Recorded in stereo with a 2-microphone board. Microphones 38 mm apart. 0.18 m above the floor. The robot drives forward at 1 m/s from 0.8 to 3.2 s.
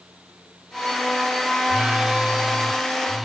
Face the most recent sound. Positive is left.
turn(degrees=-10)  # may be behind; listen again after turning